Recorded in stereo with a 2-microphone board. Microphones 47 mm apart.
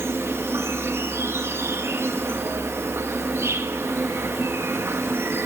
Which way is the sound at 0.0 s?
60° right (ahead or behind).